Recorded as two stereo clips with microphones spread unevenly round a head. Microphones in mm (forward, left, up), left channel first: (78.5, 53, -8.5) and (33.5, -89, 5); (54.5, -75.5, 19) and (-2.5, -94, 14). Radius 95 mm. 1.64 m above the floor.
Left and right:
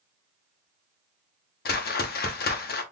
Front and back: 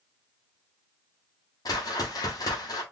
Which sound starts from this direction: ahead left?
A whoosh, at 1.6 s.